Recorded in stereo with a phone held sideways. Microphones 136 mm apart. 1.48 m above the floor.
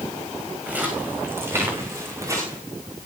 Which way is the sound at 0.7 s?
10° right (ahead or behind).